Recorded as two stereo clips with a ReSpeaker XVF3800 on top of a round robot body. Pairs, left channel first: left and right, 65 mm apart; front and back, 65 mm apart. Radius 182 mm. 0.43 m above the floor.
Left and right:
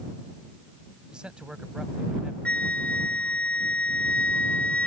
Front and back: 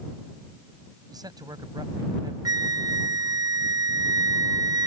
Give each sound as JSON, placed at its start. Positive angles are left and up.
{"t": 1.1, "sound": "a man speaking", "azimuth_deg": -170}
{"t": 2.5, "sound": "a flute", "azimuth_deg": 160}